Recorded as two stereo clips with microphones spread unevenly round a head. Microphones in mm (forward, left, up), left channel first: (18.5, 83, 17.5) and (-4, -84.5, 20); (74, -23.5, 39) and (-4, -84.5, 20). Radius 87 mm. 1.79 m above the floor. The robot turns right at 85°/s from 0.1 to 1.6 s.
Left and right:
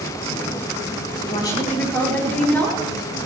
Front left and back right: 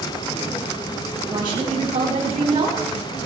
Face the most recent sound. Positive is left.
turn(degrees=165)